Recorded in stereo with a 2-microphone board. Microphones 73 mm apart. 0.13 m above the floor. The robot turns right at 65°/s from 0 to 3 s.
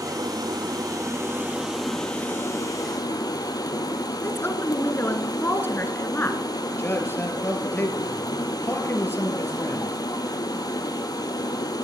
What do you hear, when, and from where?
0.0 s running water: 120° right, 1.5 m; by 11.8 s 75° left, 1.5 m
4.2 s a woman speaking: 35° left (ahead or behind), 1.2 m
6.8 s a man speaking: 30° left (ahead or behind), 2 m